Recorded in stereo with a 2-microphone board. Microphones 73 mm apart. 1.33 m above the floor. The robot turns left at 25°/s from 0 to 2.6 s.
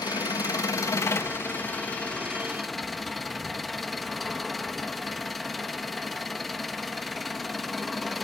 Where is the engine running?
65° left, 1.5 m; by 8.2 s straight ahead, 1.5 m.